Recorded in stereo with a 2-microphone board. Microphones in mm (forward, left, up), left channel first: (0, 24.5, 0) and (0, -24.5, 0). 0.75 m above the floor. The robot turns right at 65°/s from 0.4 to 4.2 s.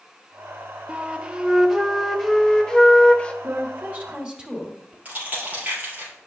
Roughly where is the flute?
Right.